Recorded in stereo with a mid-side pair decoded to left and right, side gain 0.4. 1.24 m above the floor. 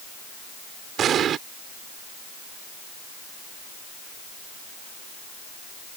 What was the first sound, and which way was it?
An explosion, 70° right.